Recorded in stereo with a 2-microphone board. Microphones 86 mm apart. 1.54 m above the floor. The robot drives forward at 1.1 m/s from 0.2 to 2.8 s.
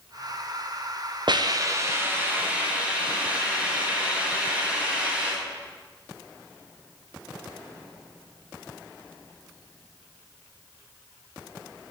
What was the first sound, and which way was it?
A hiss, 60° right (ahead or behind).